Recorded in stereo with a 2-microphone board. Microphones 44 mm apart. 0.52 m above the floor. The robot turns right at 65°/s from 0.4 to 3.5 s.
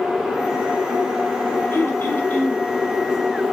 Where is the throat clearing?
85° left, 2.5 m; by 2.7 s 150° left, 2.5 m.